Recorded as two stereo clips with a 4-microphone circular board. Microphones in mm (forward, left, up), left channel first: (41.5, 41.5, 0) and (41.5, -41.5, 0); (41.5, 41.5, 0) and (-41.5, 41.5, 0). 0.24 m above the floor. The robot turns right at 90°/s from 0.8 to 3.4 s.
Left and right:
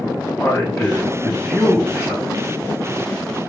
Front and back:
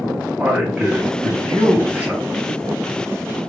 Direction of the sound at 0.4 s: 115° left.